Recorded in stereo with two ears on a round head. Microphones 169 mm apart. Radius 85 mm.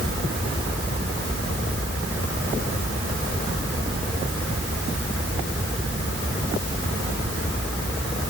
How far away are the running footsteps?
I don't hear running footsteps.